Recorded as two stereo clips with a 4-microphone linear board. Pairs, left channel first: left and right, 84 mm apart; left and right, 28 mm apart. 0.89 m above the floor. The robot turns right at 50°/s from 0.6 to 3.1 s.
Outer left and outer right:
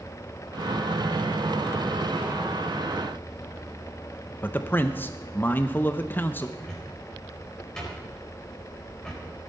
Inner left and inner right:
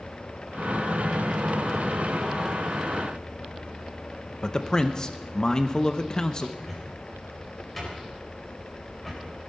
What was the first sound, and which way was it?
A man speaking, 25° left (ahead or behind).